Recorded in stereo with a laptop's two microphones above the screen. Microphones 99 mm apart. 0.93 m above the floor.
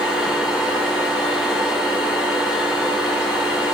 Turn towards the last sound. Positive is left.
turn(degrees=0)  # may be behind; listen again after turning